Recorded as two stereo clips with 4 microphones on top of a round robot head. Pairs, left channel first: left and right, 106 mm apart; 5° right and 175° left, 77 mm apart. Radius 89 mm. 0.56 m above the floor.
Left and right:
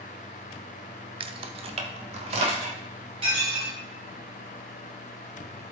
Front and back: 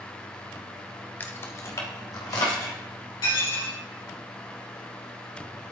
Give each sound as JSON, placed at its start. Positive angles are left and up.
{"t": 1.2, "sound": "keys jangling", "azimuth_deg": -65, "distance_m": 0.6}
{"t": 3.2, "sound": "dishes clattering", "azimuth_deg": -45, "distance_m": 4.0}